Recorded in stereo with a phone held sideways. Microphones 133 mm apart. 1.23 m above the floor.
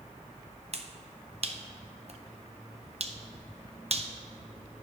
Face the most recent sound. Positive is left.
turn(degrees=-50)  # may be behind; listen again after turning